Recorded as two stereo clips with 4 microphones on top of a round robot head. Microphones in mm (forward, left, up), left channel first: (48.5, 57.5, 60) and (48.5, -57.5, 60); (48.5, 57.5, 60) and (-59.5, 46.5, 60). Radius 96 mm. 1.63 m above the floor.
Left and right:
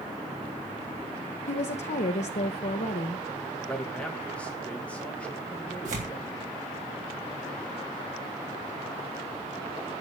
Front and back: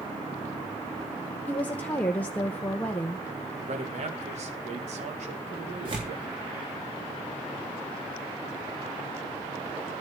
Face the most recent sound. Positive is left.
turn(degrees=-120)